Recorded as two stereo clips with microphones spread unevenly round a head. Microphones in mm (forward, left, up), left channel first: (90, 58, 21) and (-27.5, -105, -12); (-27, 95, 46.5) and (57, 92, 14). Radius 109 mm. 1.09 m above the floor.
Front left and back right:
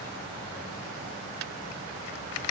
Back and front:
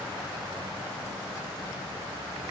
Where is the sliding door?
I don't hear a sliding door.